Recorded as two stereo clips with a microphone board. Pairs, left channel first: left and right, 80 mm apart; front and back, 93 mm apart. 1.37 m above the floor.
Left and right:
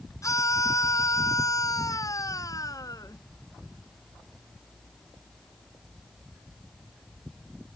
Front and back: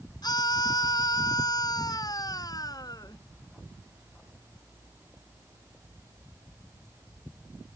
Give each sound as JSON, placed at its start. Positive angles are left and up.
{"t": 0.2, "sound": "a scream", "azimuth_deg": 40}